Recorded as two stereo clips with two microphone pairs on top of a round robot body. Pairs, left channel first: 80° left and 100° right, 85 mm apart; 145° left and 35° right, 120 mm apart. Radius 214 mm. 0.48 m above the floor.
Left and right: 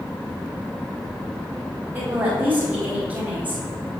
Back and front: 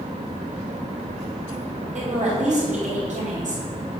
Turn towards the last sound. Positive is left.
turn(degrees=-25)